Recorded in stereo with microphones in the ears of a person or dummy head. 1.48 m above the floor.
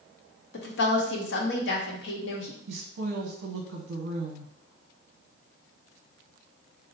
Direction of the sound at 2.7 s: 70° right (ahead or behind).